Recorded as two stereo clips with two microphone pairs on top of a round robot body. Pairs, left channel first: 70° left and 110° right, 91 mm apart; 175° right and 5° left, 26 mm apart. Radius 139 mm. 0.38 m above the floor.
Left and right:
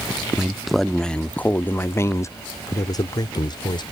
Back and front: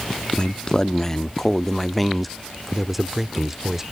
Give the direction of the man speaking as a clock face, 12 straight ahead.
6 o'clock.